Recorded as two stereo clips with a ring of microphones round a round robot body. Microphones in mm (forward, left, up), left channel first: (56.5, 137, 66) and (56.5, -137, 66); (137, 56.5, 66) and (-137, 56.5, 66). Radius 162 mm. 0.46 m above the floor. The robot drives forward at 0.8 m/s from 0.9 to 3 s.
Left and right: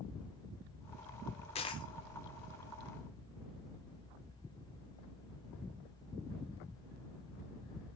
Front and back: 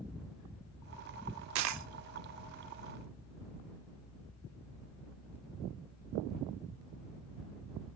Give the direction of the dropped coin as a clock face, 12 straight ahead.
7 o'clock.